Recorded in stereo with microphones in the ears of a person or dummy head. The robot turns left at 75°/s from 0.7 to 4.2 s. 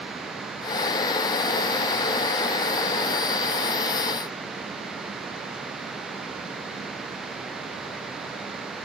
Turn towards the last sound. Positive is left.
No sound to turn to.